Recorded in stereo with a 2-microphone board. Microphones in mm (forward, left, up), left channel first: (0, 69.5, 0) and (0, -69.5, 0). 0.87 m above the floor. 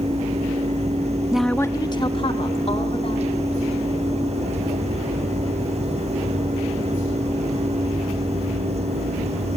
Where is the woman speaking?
10° right (ahead or behind), 0.6 m; by 3.4 s 45° left (ahead or behind), 3 m.